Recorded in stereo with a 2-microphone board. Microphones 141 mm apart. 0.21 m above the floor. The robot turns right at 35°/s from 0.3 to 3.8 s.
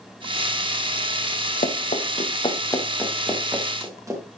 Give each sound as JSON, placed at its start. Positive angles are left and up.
{"t": 1.6, "sound": "running footsteps", "side_deg": 65, "distance_m": 2.0}